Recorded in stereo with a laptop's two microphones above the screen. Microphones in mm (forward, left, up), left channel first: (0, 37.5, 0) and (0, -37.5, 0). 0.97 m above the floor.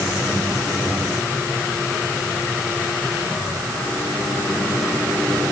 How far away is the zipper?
I don't hear a zipper.